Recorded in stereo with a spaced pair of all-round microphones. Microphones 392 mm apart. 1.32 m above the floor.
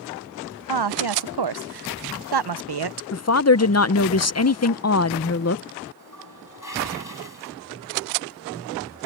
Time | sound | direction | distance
0.7 | a woman speaking | 70° right (ahead or behind) | ?
3.1 | a woman speaking | 40° left (ahead or behind) | ?
6.0 | a toilet flushing | 50° left (ahead or behind) | ?